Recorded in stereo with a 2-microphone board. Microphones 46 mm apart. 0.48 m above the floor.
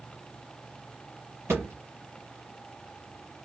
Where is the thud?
80° right, 1.8 m.